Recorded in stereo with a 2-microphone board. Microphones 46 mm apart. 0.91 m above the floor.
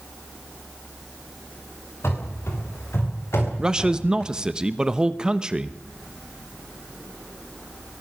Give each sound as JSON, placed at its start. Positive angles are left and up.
{"t": 2.0, "sound": "running footsteps", "side_deg": 60, "distance_m": 6.0}
{"t": 3.6, "sound": "a man speaking", "side_deg": -15, "distance_m": 1.0}